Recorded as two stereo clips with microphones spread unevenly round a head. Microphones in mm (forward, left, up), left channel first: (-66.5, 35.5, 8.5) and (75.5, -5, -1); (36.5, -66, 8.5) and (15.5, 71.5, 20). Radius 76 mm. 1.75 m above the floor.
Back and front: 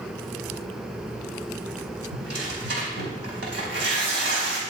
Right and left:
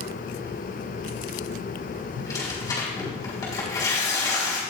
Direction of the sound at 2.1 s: 15° right.